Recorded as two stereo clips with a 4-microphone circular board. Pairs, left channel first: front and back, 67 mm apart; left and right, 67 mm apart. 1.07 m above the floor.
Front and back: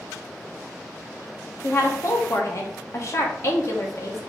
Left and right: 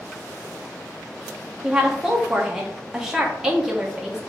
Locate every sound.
1.6 s a woman speaking: 10° right, 0.7 m